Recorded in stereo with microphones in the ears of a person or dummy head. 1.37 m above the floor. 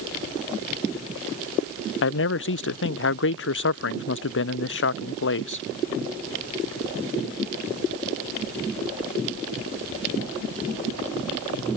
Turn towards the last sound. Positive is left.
turn(degrees=60)  # may be behind; listen again after turning